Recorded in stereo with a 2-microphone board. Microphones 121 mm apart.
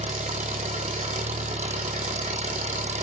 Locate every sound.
0.0 s an engine running: 70° right (ahead or behind), 1.5 m